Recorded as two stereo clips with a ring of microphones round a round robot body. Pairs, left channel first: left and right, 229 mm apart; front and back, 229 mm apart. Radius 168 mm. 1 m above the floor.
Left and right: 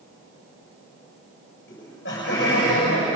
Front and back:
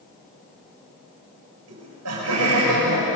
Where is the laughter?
150° left, 7 m.